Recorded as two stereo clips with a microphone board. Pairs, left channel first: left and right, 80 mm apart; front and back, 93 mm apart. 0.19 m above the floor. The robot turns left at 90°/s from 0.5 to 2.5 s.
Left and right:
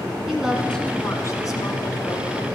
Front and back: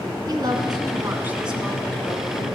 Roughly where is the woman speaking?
Behind.